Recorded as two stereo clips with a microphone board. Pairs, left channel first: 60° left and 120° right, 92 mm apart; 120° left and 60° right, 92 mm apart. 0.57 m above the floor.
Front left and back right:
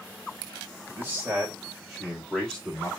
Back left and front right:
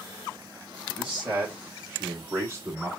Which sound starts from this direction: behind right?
A man speaking, at 1.0 s.